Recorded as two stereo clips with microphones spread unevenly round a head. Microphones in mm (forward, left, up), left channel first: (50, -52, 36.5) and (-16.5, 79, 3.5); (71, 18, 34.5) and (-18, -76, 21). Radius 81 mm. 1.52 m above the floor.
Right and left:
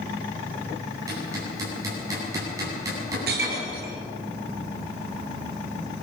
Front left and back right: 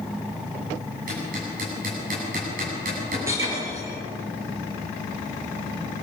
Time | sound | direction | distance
1.1 | hammering | 170° right | 8.5 m
3.3 | breaking glass | 150° left | 3.5 m